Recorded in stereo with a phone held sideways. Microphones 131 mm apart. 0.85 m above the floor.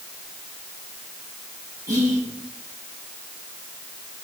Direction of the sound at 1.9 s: 30° right (ahead or behind).